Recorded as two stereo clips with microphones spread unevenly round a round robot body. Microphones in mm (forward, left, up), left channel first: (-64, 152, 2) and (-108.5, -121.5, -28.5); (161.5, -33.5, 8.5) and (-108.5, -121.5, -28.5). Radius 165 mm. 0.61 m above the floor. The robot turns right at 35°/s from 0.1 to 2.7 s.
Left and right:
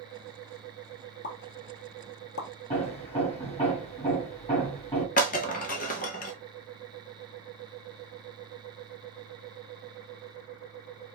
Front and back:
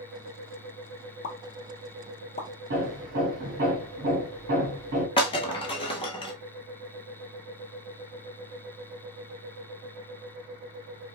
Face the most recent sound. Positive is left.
turn(degrees=65)